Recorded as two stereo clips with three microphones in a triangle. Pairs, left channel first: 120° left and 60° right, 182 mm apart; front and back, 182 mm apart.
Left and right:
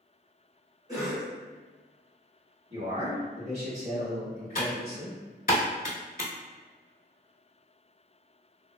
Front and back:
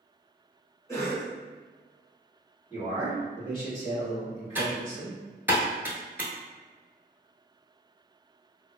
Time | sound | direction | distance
0.9 | a cough | 40° right | 1.3 m
2.7 | a man speaking | 50° right | 1.9 m
4.5 | typing on a keyboard | 105° left | 0.7 m